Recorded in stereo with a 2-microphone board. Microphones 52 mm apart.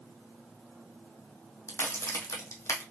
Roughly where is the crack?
Left.